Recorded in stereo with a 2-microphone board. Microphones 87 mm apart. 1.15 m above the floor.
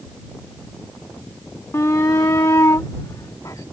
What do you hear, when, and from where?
1.7 s a shout: 30° left (ahead or behind); by 3.6 s 40° left (ahead or behind)